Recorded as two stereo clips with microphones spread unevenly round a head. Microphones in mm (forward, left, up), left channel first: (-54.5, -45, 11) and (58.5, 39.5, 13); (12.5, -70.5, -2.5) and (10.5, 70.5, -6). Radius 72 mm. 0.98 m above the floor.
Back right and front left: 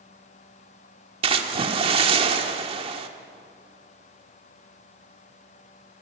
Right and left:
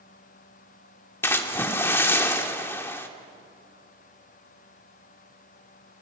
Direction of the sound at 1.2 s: 15° right.